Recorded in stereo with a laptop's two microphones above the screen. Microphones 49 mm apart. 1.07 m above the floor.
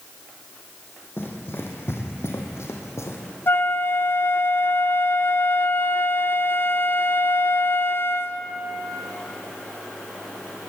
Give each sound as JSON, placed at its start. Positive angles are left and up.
{"t": 1.2, "sound": "running footsteps", "side_deg": 50, "distance_m": 3.5}
{"t": 3.5, "sound": "a flute", "side_deg": 50, "distance_m": 0.9}